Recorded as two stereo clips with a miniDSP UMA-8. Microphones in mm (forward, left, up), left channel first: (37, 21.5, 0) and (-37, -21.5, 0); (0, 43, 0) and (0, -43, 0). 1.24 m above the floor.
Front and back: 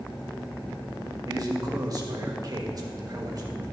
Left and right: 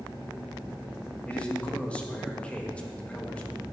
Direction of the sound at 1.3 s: 165° left.